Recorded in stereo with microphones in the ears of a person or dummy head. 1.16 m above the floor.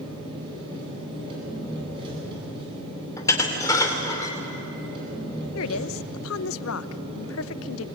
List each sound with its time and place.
0.0 s an engine running: 25° right (ahead or behind), 9 m
3.2 s dishes clattering: 20° left (ahead or behind), 3 m
5.5 s a woman speaking: 75° left (ahead or behind), 0.7 m